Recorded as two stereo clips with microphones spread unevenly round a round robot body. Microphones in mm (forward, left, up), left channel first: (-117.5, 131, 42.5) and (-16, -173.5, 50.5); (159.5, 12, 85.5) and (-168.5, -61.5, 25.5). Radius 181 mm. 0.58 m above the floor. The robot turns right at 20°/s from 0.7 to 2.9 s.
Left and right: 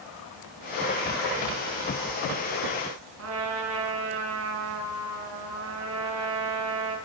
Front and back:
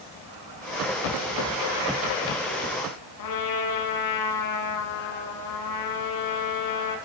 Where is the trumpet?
20° right, 6 m.